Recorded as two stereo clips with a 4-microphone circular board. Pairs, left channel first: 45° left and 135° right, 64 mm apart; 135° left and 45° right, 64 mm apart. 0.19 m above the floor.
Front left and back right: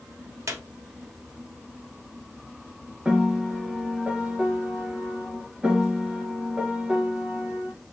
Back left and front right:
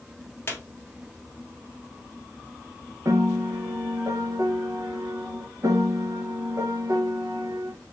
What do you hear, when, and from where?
0.5 s a squeak: 170° right, 1.2 m
3.0 s a piano: 65° right, 0.6 m